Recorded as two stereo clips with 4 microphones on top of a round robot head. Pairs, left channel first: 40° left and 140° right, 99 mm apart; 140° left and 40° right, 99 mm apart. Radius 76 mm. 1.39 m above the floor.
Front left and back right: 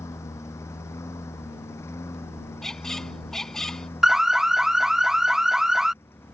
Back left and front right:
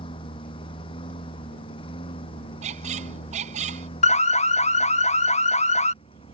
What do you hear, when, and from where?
0.0 s a lawn mower: 105° left
2.6 s a squeak: 45° right
4.0 s an alarm: 135° left